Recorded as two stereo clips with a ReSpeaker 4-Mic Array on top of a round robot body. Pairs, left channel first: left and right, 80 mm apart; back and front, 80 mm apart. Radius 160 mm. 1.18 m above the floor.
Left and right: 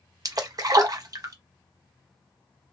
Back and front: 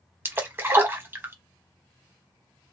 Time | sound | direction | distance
0.2 | a splash | 55° right | 0.9 m